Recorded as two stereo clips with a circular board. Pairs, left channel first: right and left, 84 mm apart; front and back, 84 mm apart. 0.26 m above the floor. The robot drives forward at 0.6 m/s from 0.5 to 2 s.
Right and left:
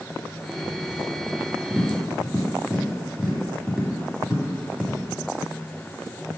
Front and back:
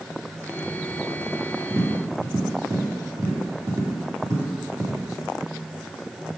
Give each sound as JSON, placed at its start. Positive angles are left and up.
{"t": 1.7, "sound": "tapping", "azimuth_deg": 160, "distance_m": 1.5}